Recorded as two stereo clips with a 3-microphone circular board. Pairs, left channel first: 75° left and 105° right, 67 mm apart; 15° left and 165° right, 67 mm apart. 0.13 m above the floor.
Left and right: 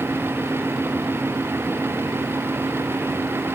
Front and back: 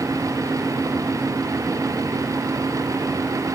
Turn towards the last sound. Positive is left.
No sound to turn to.